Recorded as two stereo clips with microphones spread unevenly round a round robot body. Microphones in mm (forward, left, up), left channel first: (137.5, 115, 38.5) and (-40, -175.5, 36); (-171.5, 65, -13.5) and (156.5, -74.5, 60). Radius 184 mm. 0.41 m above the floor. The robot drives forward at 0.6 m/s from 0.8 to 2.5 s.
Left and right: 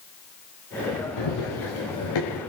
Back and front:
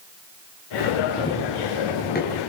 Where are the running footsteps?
80° left, 4.5 m; by 2.4 s 95° left, 5.5 m.